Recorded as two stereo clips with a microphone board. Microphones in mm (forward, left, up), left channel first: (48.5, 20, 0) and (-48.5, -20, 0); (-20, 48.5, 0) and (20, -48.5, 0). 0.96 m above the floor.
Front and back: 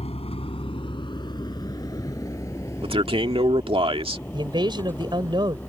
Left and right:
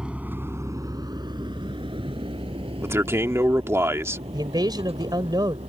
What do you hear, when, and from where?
0.0 s a vehicle: 15° left; by 5.7 s 50° right
2.8 s a man speaking: 130° right
4.3 s a man speaking: 115° right